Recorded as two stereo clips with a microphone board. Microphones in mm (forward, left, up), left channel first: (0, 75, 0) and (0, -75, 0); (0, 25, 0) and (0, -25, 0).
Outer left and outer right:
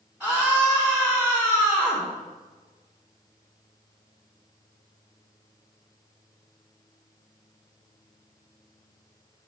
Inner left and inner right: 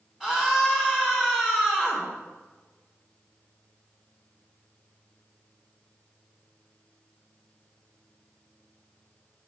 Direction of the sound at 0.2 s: 10° right (ahead or behind).